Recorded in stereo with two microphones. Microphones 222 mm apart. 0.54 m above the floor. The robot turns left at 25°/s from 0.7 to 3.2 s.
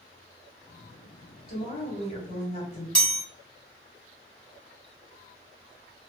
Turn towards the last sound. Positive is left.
turn(degrees=0)  # may be behind; listen again after turning